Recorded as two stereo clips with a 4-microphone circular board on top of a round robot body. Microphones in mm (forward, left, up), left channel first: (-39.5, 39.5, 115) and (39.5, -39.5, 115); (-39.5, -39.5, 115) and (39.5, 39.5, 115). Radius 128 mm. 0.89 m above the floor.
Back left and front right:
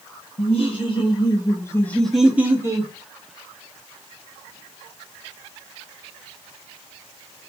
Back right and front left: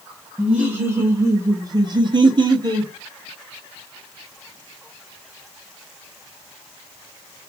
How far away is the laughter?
About 1.5 m.